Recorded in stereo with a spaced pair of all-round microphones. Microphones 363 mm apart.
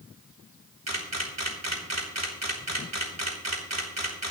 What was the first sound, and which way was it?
A camera shutter, 45° right (ahead or behind).